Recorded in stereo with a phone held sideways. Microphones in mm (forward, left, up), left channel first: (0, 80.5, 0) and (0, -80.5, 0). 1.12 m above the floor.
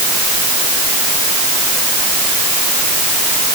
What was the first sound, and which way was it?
Only background noise.